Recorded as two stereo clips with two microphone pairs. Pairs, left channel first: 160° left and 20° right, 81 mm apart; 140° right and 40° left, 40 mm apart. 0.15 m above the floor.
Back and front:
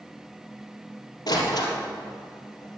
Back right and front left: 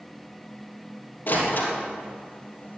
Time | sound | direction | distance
1.3 | a door slam | 170° right | 3.5 m